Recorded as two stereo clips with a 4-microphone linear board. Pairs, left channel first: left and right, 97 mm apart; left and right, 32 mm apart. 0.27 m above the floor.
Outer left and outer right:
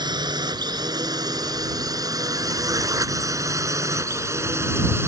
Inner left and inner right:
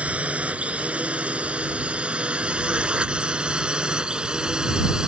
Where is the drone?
45° right (ahead or behind); by 5.1 s 25° right (ahead or behind).